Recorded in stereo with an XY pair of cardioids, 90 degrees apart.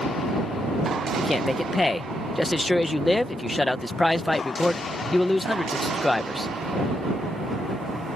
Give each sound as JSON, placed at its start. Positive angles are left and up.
{"t": 1.2, "sound": "a man speaking", "azimuth_deg": 15}